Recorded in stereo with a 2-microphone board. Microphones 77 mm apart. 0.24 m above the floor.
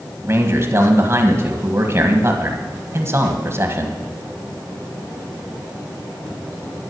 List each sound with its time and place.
0.2 s a man speaking: 35° right (ahead or behind), 1.5 m